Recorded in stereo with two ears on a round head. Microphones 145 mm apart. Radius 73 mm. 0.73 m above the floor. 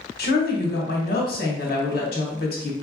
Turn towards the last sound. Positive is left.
turn(degrees=65)  # may be behind; listen again after turning